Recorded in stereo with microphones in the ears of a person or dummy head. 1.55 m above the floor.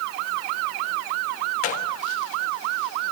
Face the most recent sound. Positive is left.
turn(degrees=45)  # may be behind; listen again after turning